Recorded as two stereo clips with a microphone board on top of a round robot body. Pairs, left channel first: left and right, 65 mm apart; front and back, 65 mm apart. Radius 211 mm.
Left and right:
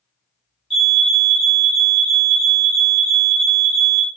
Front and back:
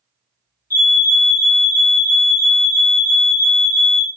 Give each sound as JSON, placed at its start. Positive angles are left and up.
{"t": 0.7, "sound": "a fire alarm", "azimuth_deg": -5, "distance_m": 1.9}